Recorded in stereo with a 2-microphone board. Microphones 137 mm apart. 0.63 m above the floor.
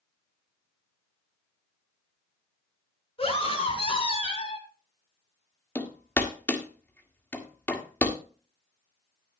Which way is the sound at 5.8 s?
15° left (ahead or behind).